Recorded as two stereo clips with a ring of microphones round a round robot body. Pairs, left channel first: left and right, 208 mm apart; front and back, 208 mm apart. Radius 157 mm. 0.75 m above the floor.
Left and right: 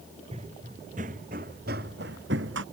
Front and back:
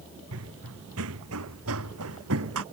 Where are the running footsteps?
160° right; by 2.6 s 140° right.